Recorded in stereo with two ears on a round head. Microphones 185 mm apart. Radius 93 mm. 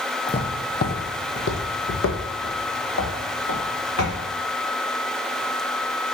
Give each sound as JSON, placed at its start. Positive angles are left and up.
{"t": 0.3, "sound": "footsteps", "side_deg": 25, "distance_m": 0.8}